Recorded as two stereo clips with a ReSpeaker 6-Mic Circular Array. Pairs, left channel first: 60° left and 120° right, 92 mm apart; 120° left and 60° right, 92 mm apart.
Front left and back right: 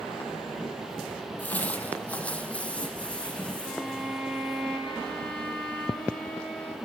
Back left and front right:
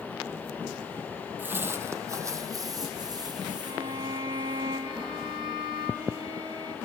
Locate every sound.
1.4 s footsteps: 5° right, 1.5 m; by 4.6 s 20° right, 4 m
3.6 s a violin: 20° right, 3 m